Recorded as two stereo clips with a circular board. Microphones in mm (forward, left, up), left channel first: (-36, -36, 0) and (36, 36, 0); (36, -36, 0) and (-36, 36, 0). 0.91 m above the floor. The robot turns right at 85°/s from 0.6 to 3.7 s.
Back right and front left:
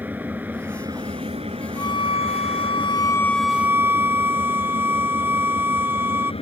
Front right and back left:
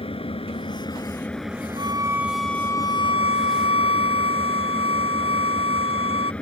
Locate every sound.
0.0 s an engine running: 25° right; by 6.4 s 125° right
1.8 s a violin: 170° left; by 6.3 s 25° right